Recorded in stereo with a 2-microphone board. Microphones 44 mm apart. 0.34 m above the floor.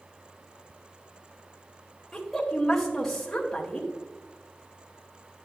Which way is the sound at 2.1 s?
5° left (ahead or behind).